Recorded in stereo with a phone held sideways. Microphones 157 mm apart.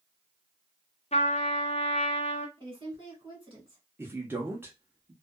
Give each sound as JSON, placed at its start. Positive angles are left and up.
{"t": 1.1, "sound": "a trumpet", "side_deg": 40, "distance_m": 0.6}
{"t": 2.6, "sound": "a woman speaking", "side_deg": -35, "distance_m": 1.7}
{"t": 4.0, "sound": "a man speaking", "side_deg": -15, "distance_m": 0.8}